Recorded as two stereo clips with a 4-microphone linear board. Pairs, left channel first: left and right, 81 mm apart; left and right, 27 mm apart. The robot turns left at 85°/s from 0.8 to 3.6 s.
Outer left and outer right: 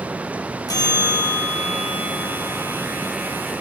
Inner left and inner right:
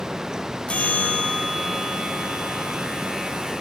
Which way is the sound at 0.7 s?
105° left.